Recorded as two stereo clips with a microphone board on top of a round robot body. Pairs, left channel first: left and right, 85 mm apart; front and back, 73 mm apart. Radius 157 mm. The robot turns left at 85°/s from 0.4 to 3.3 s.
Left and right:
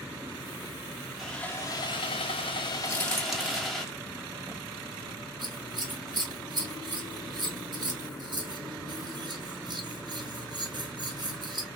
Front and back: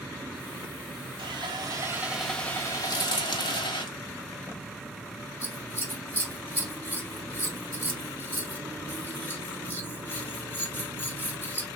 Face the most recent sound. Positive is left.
turn(degrees=-60)